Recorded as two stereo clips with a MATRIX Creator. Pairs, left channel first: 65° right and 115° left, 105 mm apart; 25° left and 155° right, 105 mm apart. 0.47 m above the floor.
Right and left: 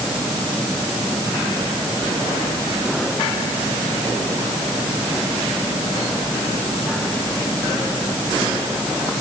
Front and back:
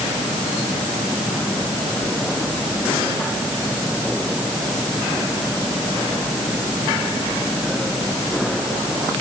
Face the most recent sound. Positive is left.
No sound to turn to.